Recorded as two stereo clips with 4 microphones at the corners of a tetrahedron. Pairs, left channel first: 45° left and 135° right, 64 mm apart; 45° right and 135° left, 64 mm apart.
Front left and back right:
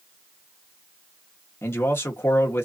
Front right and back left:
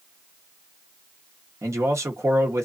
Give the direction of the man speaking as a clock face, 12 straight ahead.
9 o'clock.